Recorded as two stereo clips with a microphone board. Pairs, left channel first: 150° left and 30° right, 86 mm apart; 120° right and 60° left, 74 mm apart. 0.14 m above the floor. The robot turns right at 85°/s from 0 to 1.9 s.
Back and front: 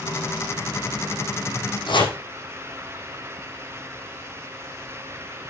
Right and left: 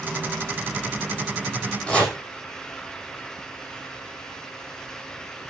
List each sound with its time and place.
1.9 s chopping: 165° left, 6 m